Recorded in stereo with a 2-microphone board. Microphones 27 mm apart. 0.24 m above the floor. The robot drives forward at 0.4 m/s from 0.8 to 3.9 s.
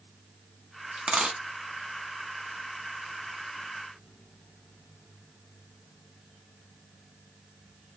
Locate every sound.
1.0 s a dropped coin: 50° right (ahead or behind), 0.7 m; by 1.4 s 40° right (ahead or behind), 0.7 m